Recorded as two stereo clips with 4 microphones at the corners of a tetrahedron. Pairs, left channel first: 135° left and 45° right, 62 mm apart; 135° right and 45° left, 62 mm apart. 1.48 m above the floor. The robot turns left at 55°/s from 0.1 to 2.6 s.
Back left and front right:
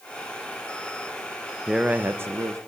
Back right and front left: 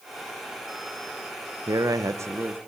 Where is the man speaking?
35° left, 1.5 m; by 2.6 s 20° right, 1.5 m.